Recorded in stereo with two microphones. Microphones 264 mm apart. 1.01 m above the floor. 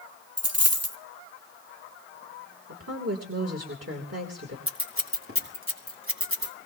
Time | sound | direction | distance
0.4 | a dropped coin | 65° right (ahead or behind) | 1.8 m
2.7 | a woman speaking | 65° right (ahead or behind) | 3.5 m
4.7 | scissors | 55° right (ahead or behind) | 3 m